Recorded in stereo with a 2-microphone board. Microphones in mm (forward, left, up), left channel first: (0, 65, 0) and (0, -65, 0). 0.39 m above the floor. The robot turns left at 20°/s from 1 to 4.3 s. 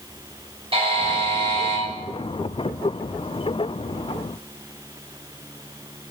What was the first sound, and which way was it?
A buzzer, 50° right (ahead or behind).